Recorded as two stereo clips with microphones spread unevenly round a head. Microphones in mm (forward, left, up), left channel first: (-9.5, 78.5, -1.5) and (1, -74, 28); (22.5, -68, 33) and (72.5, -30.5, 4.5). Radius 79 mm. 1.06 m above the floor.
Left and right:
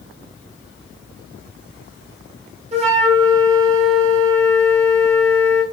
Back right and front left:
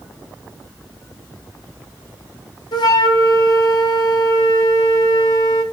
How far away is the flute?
About 1.2 m.